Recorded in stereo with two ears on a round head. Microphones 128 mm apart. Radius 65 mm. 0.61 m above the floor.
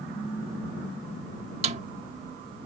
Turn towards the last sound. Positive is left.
turn(degrees=-45)  # may be behind; listen again after turning